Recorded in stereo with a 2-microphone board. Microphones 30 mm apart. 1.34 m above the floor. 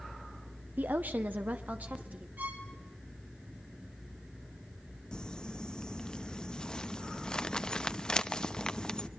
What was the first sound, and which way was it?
A woman speaking, 85° right.